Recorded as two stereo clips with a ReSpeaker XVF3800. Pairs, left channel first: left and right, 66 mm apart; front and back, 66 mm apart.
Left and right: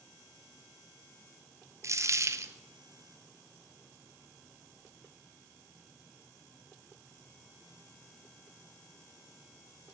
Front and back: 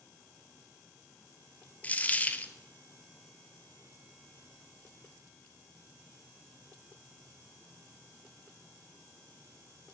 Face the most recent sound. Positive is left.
turn(degrees=-65)